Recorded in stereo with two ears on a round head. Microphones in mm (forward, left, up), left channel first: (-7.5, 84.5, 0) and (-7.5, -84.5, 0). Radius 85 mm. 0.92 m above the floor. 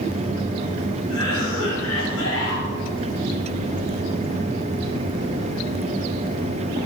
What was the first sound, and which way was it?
A cough, 80° left.